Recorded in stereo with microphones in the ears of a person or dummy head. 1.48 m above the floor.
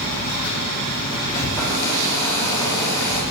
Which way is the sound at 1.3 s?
15° left (ahead or behind).